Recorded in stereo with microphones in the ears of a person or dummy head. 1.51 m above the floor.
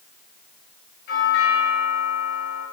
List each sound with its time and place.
1.1 s a doorbell: 60° left (ahead or behind), 9.5 m